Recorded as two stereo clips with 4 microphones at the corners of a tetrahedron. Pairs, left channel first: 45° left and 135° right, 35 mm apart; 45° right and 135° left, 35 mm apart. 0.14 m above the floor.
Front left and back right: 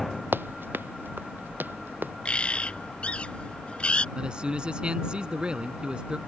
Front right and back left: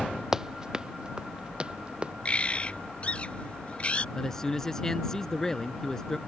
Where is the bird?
Straight ahead.